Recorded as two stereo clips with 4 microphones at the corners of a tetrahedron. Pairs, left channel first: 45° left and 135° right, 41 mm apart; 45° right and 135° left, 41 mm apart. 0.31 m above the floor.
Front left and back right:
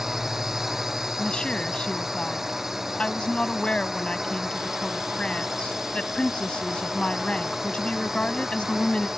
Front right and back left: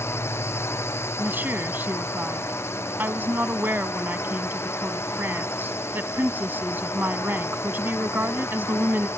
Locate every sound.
0.0 s a drone: 55° right
1.2 s a woman speaking: 105° left